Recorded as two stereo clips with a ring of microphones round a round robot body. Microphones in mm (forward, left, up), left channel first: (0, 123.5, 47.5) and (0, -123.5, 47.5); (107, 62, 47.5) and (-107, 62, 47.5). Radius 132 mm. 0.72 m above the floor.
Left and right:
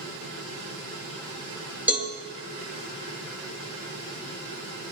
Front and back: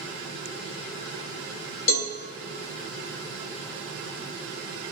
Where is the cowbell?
5° right, 2.5 m.